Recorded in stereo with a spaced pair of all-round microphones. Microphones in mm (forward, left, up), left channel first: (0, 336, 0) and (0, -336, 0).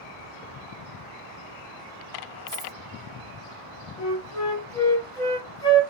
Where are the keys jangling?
40° right (ahead or behind), 1.4 m.